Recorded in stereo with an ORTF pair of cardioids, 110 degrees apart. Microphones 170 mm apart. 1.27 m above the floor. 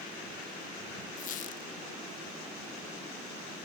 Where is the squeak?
50° left, 0.7 m.